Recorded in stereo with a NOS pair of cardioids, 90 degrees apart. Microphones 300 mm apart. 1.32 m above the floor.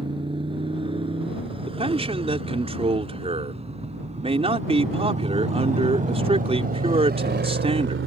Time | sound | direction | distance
0.0 | a motorcycle | 15° right | ?
1.7 | a man speaking | 20° right | ?